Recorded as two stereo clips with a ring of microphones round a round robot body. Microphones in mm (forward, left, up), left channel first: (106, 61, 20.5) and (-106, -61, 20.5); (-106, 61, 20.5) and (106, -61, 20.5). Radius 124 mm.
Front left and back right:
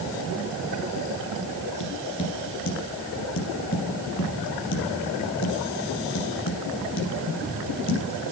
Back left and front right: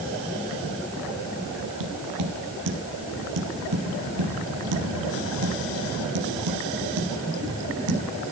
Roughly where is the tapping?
Ahead.